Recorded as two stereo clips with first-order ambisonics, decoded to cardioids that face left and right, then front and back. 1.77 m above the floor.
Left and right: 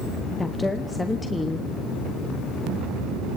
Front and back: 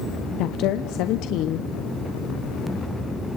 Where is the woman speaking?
10° left, 0.8 m.